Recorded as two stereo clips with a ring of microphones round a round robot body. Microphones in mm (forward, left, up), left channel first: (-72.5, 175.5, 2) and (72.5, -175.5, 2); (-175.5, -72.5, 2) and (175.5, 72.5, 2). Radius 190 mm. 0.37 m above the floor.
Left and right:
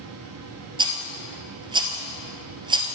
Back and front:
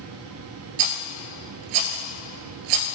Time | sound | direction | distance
0.8 | a rattle | 10° left | 1.3 m